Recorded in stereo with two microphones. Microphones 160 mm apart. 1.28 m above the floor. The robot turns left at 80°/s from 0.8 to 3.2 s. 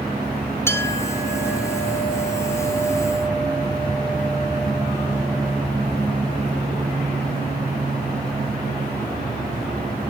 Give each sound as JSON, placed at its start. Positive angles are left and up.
{"t": 0.7, "sound": "a clink", "azimuth_deg": 165, "distance_m": 2.5}